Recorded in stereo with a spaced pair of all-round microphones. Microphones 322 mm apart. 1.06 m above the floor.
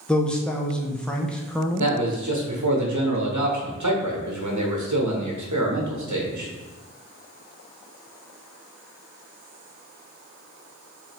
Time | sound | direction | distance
0.1 | a man speaking | 5° left (ahead or behind) | 0.5 m
1.8 | a man speaking | 60° right (ahead or behind) | 1.0 m